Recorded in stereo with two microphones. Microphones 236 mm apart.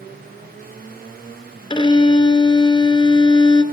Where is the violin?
20° left (ahead or behind), 0.5 m.